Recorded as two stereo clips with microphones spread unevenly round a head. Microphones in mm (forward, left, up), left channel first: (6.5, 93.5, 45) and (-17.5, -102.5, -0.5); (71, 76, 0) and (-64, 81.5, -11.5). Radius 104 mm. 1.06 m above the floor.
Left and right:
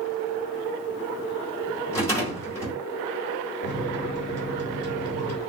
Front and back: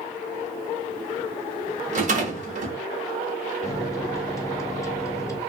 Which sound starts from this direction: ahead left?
A microwave, at 3.6 s.